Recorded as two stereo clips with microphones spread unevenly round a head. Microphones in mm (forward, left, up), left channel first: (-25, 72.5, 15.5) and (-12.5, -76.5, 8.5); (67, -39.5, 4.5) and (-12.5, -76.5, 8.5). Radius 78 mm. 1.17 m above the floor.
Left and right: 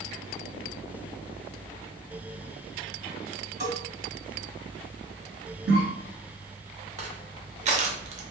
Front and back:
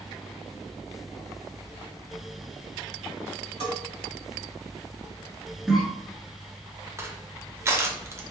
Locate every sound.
3.6 s a bell: 150° right, 1.5 m
5.7 s a cough: 75° right, 1.6 m
7.0 s crushing: 100° right, 0.6 m